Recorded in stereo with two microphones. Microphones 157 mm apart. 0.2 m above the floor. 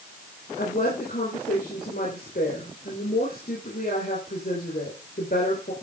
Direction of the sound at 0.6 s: 70° left (ahead or behind).